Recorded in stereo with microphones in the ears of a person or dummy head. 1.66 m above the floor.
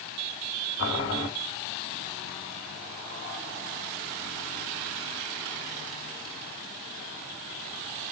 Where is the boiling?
70° left (ahead or behind), 2 m.